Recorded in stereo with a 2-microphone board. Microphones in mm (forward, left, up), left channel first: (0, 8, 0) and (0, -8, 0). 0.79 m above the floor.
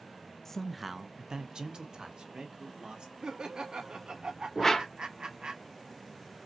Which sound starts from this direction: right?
Laughter, at 3.2 s.